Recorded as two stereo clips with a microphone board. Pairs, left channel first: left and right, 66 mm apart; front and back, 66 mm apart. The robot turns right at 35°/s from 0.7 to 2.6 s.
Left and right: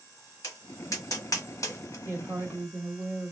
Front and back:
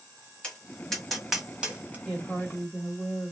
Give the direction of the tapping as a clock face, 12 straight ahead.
10 o'clock.